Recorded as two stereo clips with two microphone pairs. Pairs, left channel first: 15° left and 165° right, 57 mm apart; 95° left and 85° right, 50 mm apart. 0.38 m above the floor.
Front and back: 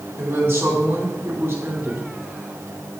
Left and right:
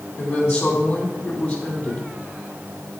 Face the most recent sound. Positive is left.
turn(degrees=145)